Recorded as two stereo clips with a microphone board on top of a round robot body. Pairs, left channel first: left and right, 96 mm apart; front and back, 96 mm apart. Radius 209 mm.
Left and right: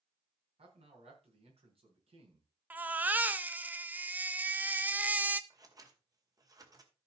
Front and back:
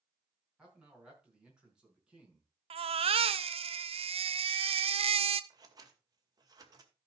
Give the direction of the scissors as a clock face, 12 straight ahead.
5 o'clock.